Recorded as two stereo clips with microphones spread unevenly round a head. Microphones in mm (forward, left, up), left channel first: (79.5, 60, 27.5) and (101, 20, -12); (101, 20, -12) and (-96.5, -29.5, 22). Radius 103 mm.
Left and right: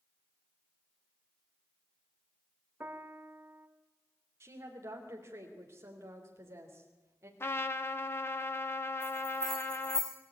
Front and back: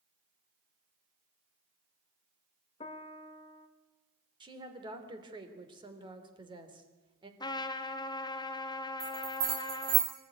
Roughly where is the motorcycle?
I don't hear a motorcycle.